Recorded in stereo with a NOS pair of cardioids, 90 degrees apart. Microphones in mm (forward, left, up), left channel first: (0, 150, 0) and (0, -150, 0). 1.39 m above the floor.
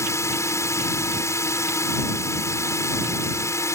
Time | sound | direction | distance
0.0 | a drone | 10° left | ?